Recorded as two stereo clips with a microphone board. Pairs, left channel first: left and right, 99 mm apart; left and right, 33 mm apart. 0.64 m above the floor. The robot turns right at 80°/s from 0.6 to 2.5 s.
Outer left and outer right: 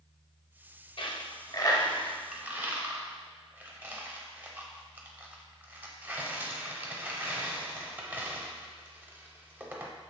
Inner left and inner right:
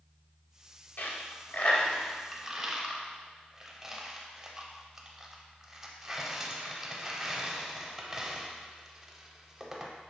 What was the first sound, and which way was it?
A dropped coin, 55° left (ahead or behind).